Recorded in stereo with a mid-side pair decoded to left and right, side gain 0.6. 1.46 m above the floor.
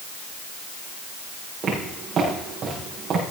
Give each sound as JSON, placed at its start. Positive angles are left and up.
{"t": 1.6, "sound": "footsteps", "azimuth_deg": -45, "distance_m": 7.0}